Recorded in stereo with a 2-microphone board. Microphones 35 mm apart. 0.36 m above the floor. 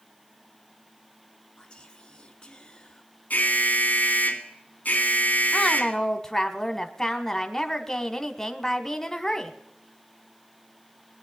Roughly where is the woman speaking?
Centre.